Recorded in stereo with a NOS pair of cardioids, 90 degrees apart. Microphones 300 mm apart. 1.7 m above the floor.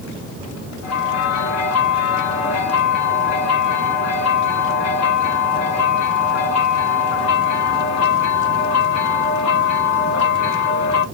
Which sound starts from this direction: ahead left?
A bell, at 0.8 s.